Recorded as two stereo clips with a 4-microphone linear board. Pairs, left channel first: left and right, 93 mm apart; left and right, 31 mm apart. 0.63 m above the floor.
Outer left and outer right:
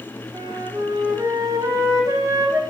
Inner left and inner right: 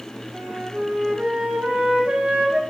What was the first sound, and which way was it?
A flute, 40° right (ahead or behind).